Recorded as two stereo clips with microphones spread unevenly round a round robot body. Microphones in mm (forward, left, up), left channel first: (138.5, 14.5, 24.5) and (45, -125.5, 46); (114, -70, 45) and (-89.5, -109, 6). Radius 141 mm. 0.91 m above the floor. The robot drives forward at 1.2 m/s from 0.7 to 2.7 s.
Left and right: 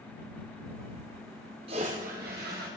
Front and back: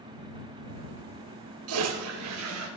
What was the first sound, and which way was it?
A toilet flushing, straight behind.